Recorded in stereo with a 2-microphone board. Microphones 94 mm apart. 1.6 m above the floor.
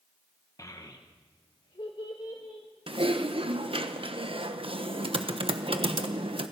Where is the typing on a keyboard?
75° right (ahead or behind), 1.1 m.